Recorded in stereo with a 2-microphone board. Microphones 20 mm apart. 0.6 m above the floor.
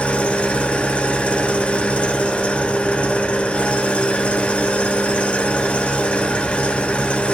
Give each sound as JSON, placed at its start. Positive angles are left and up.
{"t": 0.0, "sound": "an engine running", "side_deg": 85, "distance_m": 0.8}